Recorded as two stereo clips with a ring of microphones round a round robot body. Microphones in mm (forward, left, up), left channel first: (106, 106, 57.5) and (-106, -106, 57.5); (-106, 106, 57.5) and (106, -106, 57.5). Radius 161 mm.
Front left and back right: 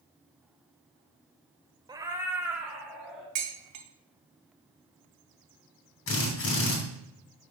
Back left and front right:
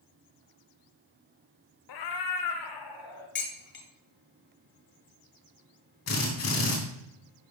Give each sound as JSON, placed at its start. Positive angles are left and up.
{"t": 1.9, "sound": "a cat meowing", "azimuth_deg": 150, "distance_m": 0.7}
{"t": 3.4, "sound": "dishes clattering", "azimuth_deg": -170, "distance_m": 1.5}
{"t": 6.1, "sound": "a drill", "azimuth_deg": 95, "distance_m": 3.0}